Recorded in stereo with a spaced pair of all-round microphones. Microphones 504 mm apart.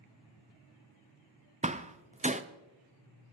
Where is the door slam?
15° right (ahead or behind), 0.5 m.